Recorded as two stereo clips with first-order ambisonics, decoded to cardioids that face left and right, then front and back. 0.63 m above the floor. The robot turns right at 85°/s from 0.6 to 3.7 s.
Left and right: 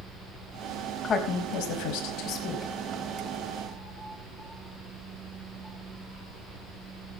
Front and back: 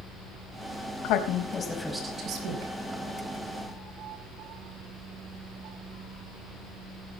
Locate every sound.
1.0 s a woman speaking: 20° left, 4.5 m; by 2.7 s 165° left, 4.5 m